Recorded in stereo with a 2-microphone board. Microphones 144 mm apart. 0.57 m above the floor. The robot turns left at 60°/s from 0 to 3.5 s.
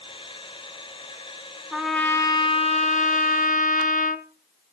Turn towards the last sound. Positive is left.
turn(degrees=80)